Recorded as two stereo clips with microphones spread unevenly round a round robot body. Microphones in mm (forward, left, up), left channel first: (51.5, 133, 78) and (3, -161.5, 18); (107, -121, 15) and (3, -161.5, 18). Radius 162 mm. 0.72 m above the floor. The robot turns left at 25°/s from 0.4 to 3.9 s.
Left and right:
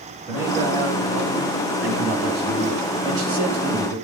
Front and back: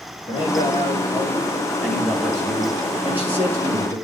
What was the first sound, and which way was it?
A man speaking, 15° right.